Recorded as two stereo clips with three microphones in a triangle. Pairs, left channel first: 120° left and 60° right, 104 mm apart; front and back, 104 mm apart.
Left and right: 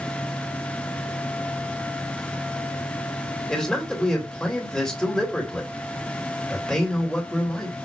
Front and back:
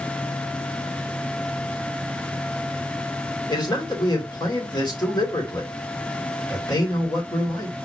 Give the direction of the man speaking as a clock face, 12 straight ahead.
11 o'clock.